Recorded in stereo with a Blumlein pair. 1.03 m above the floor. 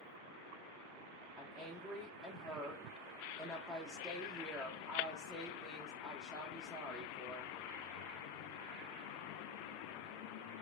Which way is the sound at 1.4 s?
Straight ahead.